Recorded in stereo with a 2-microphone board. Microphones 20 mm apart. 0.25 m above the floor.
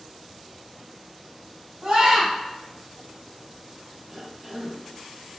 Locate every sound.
1.8 s a scream: 50° right (ahead or behind), 1.5 m
4.1 s a cough: 20° right (ahead or behind), 1.1 m